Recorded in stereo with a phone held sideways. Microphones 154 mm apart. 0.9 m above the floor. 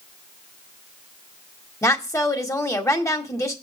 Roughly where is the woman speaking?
Centre.